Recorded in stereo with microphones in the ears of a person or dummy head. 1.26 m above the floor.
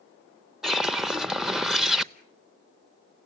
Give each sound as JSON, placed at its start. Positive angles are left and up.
{"t": 0.6, "sound": "a whoosh", "side_deg": 0, "distance_m": 0.6}